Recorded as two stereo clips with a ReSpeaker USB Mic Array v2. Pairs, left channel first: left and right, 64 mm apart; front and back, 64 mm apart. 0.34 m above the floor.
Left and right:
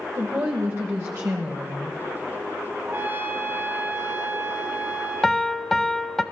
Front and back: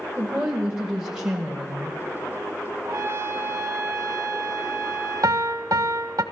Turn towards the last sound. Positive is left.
turn(degrees=175)